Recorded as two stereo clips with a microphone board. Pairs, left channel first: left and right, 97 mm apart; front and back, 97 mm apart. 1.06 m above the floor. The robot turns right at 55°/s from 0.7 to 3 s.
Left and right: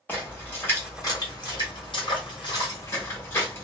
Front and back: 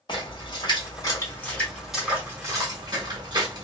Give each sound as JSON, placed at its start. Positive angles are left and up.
{"t": 0.1, "sound": "a splash", "azimuth_deg": 25, "distance_m": 1.5}